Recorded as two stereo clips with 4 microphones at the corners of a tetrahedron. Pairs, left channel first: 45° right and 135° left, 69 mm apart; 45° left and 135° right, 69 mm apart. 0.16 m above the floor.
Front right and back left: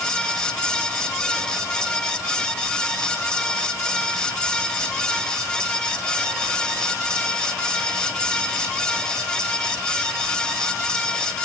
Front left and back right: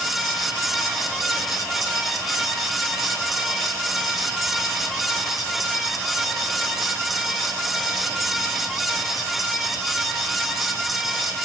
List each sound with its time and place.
Only background noise.